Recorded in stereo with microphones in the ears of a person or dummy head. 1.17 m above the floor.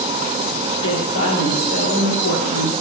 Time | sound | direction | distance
0.7 | a woman speaking | 55° left (ahead or behind) | 3 m